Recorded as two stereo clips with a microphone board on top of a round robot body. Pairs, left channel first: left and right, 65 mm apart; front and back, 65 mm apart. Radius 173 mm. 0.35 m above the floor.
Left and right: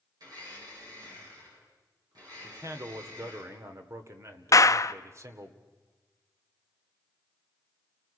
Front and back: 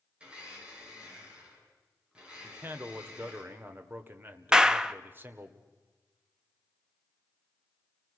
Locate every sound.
0.2 s a blender: 105° right, 8 m
2.4 s a man speaking: 125° right, 2 m
4.5 s a clap: 100° left, 0.8 m